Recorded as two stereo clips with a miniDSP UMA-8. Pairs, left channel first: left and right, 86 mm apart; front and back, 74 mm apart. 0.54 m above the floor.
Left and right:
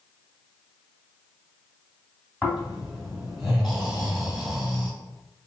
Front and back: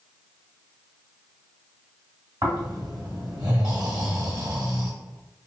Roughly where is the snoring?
Behind.